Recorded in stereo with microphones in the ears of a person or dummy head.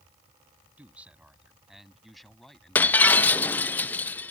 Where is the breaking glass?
10° left (ahead or behind).